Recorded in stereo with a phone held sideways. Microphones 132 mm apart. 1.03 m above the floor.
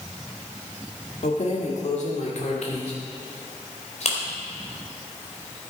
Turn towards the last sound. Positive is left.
turn(degrees=55)  # may be behind; listen again after turning